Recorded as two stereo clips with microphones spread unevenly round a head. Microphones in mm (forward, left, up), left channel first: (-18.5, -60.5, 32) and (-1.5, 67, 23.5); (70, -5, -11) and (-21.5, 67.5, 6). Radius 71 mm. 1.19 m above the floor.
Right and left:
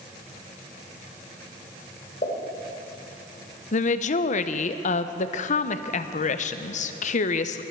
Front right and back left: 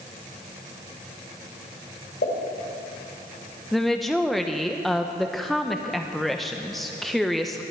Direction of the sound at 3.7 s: 125° right.